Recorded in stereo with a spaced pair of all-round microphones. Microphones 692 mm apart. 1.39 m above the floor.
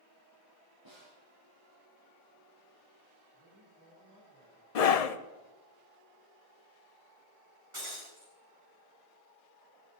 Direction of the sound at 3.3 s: 20° left (ahead or behind).